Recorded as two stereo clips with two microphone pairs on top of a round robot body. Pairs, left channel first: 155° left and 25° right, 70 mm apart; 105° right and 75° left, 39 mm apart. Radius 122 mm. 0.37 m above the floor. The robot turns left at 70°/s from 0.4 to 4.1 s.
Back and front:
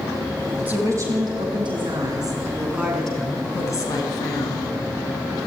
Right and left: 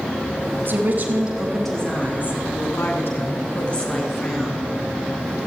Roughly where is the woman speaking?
Ahead left.